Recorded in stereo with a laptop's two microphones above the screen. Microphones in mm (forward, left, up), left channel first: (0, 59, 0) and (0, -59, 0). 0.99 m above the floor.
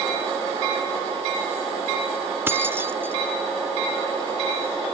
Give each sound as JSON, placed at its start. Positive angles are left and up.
{"t": 2.5, "sound": "keys jangling", "side_deg": -20, "distance_m": 0.6}